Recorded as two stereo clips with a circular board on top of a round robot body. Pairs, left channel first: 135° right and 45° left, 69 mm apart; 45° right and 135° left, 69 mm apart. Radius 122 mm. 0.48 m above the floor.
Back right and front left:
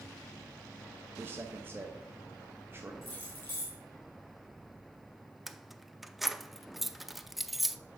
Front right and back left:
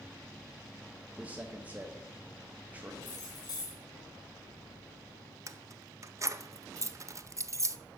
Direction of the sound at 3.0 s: 75° right.